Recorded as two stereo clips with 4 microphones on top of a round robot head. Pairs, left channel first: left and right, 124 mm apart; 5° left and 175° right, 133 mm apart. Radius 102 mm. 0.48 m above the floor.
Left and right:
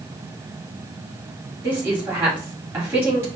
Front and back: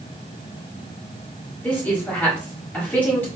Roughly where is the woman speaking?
Ahead right.